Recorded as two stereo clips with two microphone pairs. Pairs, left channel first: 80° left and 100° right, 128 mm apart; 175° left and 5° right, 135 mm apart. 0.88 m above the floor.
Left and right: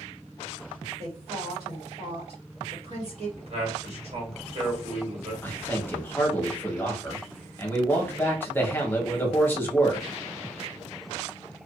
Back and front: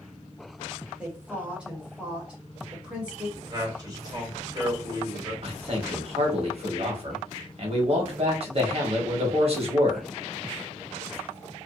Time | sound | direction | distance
1.0 | a woman speaking | 80° right | 1.4 m
3.4 | a man speaking | 60° right | 1.4 m
5.4 | a man speaking | 15° left | 1.0 m